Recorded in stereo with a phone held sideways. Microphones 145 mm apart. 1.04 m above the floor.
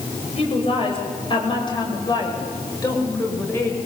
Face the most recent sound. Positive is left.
turn(degrees=15)  # may be behind; listen again after turning